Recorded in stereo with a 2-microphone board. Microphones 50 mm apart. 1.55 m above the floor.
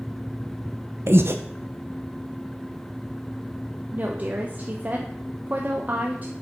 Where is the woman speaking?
35° right (ahead or behind), 0.9 m.